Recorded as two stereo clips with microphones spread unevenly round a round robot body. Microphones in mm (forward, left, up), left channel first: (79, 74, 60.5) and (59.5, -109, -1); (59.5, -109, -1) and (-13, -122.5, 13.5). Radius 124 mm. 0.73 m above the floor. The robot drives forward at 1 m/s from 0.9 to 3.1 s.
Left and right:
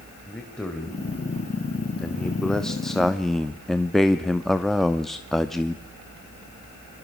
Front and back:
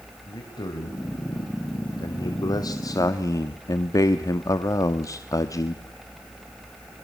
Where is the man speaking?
5° right, 3 m; by 5.8 s 15° right, 1.0 m.